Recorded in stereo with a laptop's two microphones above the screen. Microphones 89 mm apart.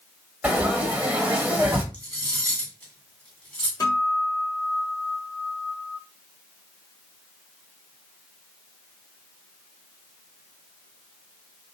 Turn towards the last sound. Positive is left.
turn(degrees=45)  # may be behind; listen again after turning